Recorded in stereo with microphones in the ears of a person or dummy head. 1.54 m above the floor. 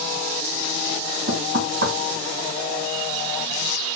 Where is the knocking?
70° right (ahead or behind), 1.7 m.